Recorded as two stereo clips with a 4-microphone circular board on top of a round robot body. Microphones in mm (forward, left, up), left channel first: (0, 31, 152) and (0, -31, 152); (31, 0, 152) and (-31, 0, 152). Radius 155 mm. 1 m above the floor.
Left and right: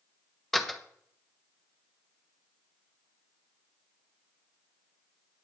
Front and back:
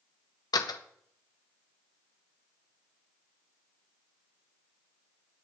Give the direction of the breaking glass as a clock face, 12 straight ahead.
No breaking glass in this recording.